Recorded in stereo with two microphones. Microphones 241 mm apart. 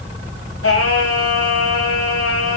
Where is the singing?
70° left (ahead or behind), 2 m.